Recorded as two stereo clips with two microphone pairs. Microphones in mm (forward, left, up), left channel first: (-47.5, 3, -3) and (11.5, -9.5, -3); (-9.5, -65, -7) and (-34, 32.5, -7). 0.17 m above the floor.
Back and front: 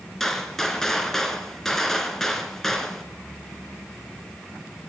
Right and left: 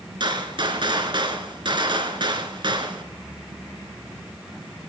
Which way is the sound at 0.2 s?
85° left.